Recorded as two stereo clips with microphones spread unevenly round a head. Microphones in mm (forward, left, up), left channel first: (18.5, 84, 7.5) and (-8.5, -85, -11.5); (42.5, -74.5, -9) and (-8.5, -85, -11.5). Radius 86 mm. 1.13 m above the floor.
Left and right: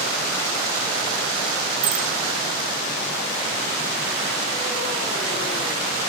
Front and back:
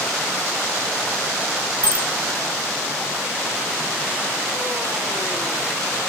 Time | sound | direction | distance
1.8 | a bicycle bell | 115° right | 7.5 m